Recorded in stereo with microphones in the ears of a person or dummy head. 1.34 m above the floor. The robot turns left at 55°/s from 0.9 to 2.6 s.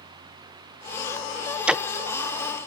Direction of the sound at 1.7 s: 5° right (ahead or behind).